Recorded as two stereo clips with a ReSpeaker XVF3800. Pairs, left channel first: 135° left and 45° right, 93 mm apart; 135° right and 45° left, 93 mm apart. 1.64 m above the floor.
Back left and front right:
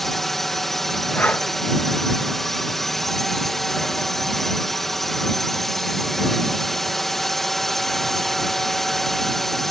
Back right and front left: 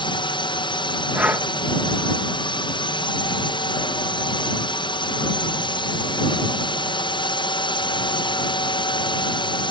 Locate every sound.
0.0 s a drone: 135° right
1.1 s breathing: 95° left